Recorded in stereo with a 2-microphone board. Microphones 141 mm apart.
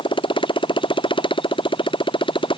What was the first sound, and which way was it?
A motorcycle, 35° left (ahead or behind).